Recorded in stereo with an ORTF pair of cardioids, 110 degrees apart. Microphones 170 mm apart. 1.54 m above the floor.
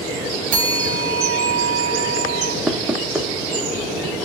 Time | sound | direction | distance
0.5 | a bell | 55° right | 0.8 m
2.7 | knocking | 5° right | 0.7 m